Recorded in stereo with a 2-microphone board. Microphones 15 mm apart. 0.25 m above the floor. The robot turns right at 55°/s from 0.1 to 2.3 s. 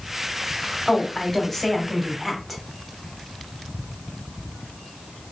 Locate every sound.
0.9 s a woman speaking: 90° left, 1.0 m; by 2.6 s 170° left, 1.0 m